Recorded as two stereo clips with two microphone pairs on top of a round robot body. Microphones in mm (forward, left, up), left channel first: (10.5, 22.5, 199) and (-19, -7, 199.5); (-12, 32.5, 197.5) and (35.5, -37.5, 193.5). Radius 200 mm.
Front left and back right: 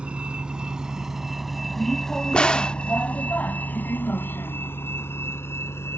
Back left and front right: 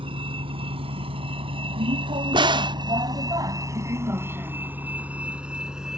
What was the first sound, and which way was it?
A vehicle, 70° right.